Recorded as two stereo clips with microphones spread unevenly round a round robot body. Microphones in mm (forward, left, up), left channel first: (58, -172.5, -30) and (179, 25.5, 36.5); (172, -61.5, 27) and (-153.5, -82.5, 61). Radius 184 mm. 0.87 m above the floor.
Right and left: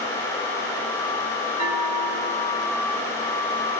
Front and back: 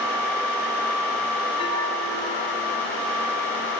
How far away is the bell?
About 3 m.